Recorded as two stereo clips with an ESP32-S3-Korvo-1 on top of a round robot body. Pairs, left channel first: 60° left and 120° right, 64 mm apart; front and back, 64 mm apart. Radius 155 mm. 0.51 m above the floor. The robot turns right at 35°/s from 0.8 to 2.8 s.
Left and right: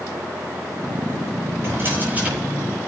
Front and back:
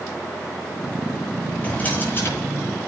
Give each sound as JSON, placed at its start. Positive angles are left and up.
{"t": 1.6, "sound": "a drawer", "azimuth_deg": -70, "distance_m": 10.0}